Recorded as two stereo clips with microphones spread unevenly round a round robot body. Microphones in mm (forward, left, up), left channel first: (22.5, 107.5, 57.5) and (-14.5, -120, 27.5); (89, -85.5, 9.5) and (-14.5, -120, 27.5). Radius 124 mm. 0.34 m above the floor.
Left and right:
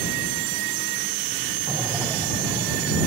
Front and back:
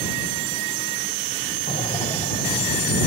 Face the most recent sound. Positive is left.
turn(degrees=-15)